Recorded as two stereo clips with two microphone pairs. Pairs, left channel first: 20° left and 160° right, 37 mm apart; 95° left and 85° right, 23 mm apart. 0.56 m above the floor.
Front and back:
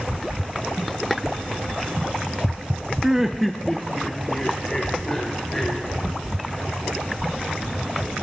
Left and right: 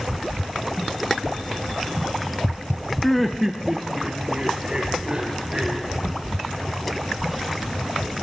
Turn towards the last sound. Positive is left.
turn(degrees=-50)